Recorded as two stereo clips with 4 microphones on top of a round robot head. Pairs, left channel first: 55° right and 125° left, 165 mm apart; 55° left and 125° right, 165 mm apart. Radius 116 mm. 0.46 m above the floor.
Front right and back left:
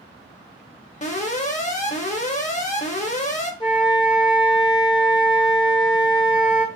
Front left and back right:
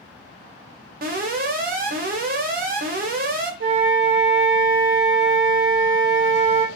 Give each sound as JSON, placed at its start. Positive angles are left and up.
{"t": 1.0, "sound": "an alarm", "azimuth_deg": -100, "distance_m": 0.8}
{"t": 3.6, "sound": "a flute", "azimuth_deg": -120, "distance_m": 0.5}